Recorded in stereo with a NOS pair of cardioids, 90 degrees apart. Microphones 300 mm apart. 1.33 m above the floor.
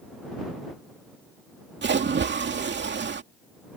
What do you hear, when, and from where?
1.8 s a splash: 35° right